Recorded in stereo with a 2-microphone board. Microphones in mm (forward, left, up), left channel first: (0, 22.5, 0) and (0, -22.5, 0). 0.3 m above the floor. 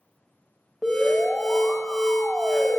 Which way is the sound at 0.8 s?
10° right (ahead or behind).